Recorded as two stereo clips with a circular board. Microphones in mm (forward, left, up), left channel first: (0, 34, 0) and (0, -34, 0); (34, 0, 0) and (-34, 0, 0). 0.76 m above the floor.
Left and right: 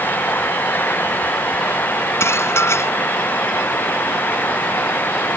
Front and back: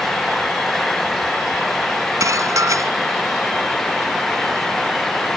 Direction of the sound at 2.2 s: 140° left.